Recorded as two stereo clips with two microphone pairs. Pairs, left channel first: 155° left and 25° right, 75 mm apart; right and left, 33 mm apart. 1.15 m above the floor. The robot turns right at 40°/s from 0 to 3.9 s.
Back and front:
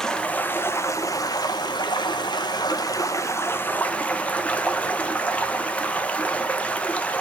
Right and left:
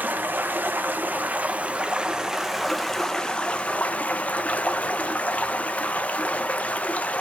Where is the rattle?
No rattle in this recording.